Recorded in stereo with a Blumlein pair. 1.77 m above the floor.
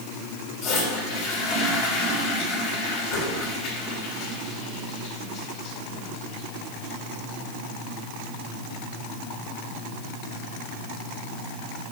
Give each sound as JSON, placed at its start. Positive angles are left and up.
{"t": 0.6, "sound": "a toilet flushing", "azimuth_deg": 40, "distance_m": 3.0}